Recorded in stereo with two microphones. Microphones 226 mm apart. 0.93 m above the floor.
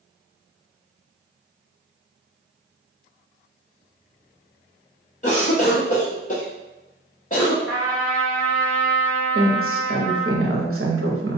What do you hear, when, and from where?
5.2 s a cough: 35° left (ahead or behind), 0.8 m
7.7 s a trumpet: centre (ahead or behind), 1.9 m
9.3 s a woman speaking: 70° right (ahead or behind), 0.8 m